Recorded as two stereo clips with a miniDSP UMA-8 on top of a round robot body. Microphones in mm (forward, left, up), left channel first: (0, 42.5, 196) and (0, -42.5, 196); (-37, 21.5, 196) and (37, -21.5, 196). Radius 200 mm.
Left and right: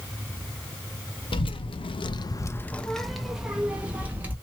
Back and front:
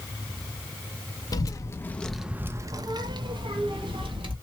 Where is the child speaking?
105° left, 0.8 m; by 4.3 s 20° right, 1.6 m.